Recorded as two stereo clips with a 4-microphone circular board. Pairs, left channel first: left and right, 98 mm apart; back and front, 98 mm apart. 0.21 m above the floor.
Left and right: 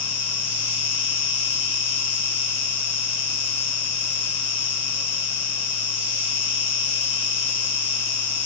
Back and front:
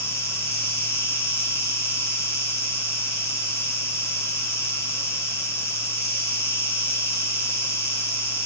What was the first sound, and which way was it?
An insect, 145° right.